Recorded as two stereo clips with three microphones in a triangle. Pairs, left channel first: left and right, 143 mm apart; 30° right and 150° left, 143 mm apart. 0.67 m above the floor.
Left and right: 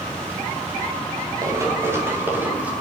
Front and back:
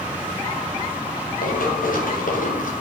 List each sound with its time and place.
1.4 s running footsteps: 25° right, 6.5 m; by 2.7 s 10° right, 6.5 m